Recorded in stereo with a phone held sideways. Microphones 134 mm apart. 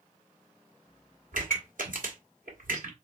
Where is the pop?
70° right (ahead or behind), 2 m.